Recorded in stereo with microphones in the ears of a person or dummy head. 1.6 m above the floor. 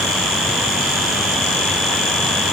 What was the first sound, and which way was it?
Only background noise.